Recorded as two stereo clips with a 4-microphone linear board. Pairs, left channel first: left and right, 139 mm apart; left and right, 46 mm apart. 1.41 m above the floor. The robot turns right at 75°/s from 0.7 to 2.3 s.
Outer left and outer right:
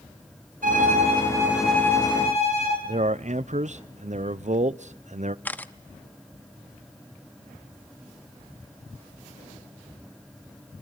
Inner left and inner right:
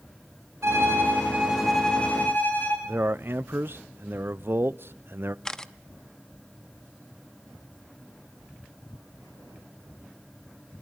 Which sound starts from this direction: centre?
A camera shutter, at 5.5 s.